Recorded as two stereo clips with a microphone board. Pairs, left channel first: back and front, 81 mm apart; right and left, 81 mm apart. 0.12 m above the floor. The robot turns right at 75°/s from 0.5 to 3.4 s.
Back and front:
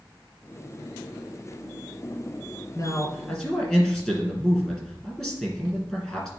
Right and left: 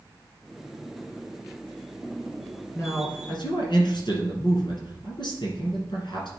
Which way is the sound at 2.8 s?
150° right.